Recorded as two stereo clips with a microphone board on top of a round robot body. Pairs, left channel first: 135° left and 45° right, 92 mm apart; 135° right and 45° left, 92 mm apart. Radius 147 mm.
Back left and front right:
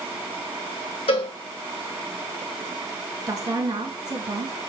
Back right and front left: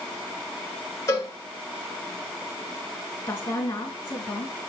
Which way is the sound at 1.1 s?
165° left.